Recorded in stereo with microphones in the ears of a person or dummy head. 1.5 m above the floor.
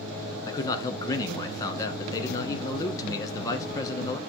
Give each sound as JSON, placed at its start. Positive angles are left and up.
{"t": 0.5, "sound": "a man speaking", "side_deg": 20, "distance_m": 0.8}